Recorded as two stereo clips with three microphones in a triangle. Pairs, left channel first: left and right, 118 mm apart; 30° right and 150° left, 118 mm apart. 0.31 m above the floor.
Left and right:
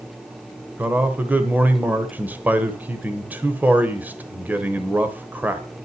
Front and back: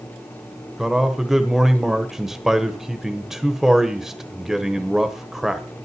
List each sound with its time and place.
0.8 s a man speaking: 130° right, 1.1 m